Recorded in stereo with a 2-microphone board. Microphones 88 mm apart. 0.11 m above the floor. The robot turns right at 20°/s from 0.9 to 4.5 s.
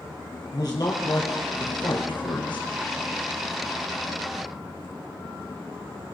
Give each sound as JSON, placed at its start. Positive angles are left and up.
{"t": 0.5, "sound": "a man speaking", "side_deg": 50, "distance_m": 2.5}